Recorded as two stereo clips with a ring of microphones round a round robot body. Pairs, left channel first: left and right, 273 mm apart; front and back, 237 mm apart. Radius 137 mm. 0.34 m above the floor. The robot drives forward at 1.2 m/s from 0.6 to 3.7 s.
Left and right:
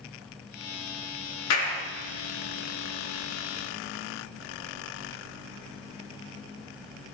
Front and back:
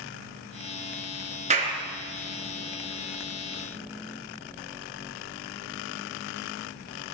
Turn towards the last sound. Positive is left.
turn(degrees=140)